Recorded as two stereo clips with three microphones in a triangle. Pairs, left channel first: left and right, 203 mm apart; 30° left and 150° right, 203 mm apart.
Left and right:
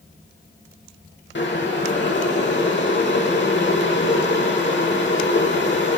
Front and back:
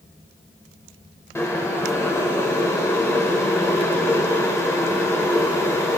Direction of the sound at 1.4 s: 105° left.